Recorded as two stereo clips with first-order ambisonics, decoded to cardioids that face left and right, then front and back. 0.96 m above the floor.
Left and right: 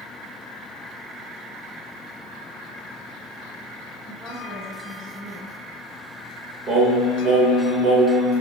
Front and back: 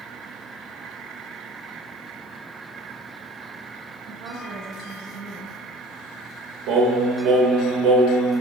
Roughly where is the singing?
Behind right.